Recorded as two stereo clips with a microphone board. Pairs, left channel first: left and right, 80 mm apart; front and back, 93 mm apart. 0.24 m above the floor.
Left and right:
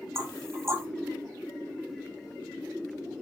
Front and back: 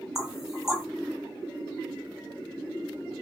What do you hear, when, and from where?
0.1 s knocking: 100° right, 1.4 m